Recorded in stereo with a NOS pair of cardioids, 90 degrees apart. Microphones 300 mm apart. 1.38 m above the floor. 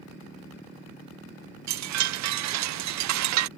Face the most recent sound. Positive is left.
turn(degrees=-65)